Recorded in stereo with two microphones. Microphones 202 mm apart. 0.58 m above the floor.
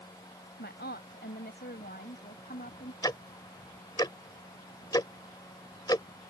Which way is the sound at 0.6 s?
65° left (ahead or behind).